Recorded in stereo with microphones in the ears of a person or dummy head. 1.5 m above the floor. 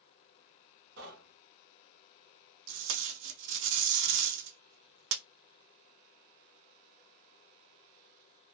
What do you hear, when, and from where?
1.0 s knocking: 65° right (ahead or behind), 1.3 m
2.7 s tape being pulled: 65° right (ahead or behind), 0.6 m